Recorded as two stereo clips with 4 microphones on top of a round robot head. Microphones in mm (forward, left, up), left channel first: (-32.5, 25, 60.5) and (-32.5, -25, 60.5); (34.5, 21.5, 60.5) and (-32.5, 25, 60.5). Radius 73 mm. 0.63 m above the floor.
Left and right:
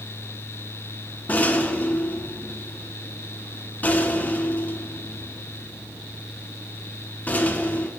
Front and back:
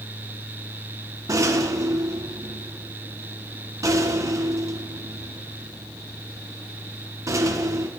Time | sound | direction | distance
1.3 | a rattle | 145° left | 1.2 m